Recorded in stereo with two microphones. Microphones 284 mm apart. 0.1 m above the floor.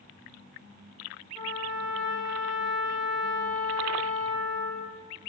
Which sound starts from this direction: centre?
A trumpet, at 1.4 s.